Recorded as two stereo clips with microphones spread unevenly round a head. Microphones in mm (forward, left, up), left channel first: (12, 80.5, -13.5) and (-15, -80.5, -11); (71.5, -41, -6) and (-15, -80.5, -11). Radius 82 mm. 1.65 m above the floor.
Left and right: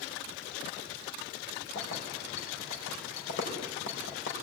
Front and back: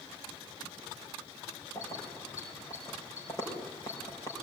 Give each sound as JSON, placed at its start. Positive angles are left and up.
{"t": 1.8, "sound": "keys jangling", "azimuth_deg": 95, "distance_m": 4.5}